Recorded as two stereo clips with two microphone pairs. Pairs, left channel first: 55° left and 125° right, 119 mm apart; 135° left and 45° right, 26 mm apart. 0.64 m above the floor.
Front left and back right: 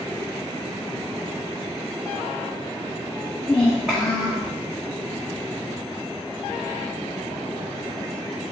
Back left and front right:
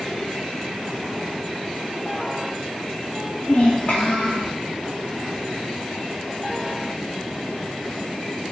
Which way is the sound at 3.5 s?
130° left.